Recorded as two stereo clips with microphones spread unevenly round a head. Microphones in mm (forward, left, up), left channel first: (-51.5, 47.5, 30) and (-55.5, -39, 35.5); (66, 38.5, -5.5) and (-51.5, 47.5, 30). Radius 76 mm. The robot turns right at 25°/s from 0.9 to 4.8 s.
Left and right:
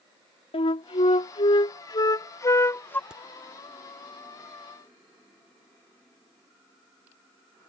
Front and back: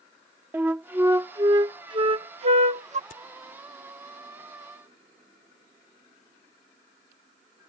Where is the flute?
105° left; by 3.0 s 155° left.